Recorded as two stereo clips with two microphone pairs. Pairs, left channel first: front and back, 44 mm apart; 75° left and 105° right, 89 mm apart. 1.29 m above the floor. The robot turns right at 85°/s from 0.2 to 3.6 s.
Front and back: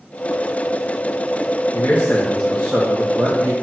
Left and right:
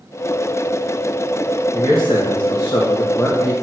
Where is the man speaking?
15° left, 1.4 m; by 3.5 s 165° left, 1.4 m.